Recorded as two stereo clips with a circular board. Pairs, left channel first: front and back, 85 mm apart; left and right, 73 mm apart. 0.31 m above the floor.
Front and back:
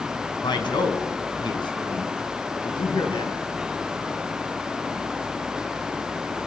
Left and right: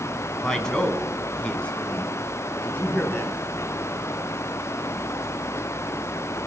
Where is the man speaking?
10° left, 3 m; by 3.4 s 25° left, 4.5 m.